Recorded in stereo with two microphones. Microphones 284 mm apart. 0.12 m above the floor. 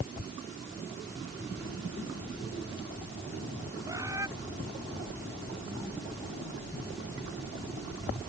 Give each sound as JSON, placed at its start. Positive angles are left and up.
{"t": 3.9, "sound": "a bird", "side_deg": -10}